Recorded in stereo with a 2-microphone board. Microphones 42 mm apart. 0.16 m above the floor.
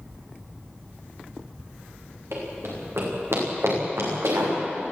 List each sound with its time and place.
2.3 s running footsteps: 80° right, 9 m